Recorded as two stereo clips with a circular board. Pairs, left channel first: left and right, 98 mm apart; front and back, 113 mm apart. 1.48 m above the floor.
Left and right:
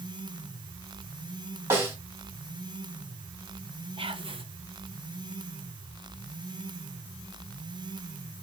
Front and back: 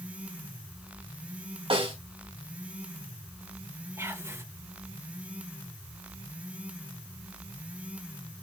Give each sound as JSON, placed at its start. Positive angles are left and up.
{"t": 1.7, "sound": "a snare drum", "azimuth_deg": -150, "distance_m": 3.0}
{"t": 4.0, "sound": "whispering", "azimuth_deg": -115, "distance_m": 1.2}